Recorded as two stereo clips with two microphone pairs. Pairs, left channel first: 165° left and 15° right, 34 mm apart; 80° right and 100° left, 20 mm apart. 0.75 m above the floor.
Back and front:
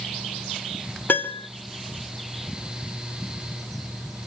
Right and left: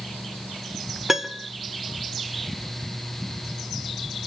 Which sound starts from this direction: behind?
A piano, at 1.1 s.